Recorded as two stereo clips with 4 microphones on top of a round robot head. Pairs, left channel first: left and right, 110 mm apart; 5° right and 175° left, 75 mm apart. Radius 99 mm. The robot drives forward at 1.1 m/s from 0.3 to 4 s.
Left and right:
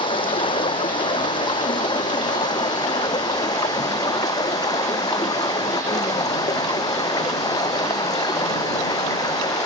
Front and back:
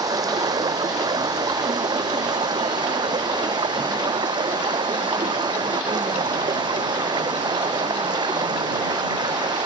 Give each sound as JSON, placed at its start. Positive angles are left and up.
{"t": 0.0, "sound": "running water", "azimuth_deg": 135}